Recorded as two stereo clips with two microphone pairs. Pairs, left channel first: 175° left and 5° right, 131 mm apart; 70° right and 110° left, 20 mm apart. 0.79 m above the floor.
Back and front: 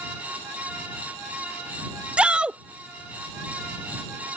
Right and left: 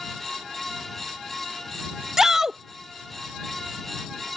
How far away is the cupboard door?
I don't hear a cupboard door.